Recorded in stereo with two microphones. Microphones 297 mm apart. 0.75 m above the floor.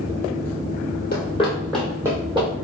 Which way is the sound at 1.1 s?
35° left (ahead or behind).